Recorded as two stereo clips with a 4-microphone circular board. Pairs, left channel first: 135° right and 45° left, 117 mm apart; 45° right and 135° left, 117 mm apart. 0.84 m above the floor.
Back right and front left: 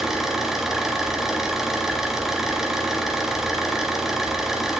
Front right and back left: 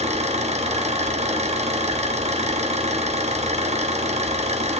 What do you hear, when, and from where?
0.0 s an engine running: 130° left, 1.4 m